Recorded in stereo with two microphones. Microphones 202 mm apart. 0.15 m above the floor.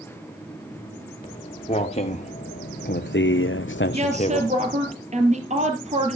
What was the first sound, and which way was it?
Footsteps, 25° left (ahead or behind).